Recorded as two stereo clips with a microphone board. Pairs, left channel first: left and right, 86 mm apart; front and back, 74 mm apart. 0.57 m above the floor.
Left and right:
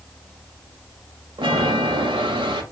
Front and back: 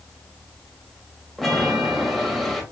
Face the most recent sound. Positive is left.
turn(degrees=-90)